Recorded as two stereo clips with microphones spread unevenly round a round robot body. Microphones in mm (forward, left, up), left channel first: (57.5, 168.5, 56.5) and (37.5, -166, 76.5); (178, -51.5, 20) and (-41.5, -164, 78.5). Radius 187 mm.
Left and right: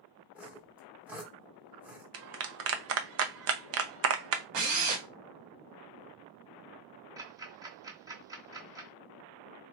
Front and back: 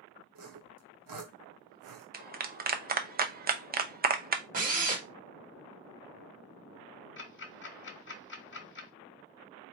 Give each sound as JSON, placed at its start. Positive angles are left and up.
{"t": 0.3, "sound": "sawing", "azimuth_deg": 180, "distance_m": 0.9}
{"t": 2.1, "sound": "a clap", "azimuth_deg": -100, "distance_m": 0.7}
{"t": 4.5, "sound": "a drill", "azimuth_deg": -95, "distance_m": 1.5}
{"t": 7.2, "sound": "ticking", "azimuth_deg": -10, "distance_m": 1.2}